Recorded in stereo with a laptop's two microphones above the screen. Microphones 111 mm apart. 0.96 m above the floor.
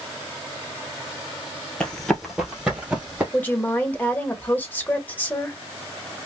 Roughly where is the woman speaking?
Centre.